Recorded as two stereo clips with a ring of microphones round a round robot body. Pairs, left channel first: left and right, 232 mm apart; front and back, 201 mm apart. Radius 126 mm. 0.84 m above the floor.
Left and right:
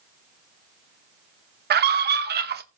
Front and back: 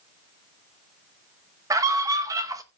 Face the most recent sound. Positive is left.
turn(degrees=-110)